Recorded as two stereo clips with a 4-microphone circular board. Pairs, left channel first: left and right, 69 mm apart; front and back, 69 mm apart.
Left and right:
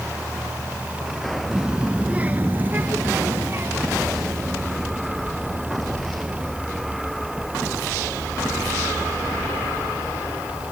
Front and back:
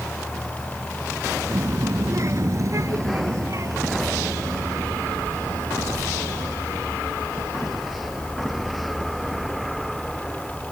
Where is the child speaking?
165° right; by 6.5 s 135° right.